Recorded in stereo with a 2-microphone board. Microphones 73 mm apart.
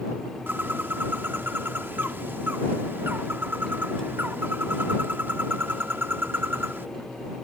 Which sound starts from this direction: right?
A bird, at 0.5 s.